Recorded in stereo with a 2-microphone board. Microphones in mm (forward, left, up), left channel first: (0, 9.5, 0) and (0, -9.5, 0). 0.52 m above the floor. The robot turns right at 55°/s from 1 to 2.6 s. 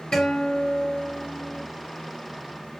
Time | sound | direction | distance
0.1 | a guitar | 125° left | 1.9 m